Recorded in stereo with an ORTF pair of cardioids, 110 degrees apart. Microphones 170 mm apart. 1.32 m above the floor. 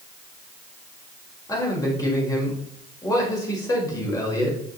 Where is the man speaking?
20° left, 5 m.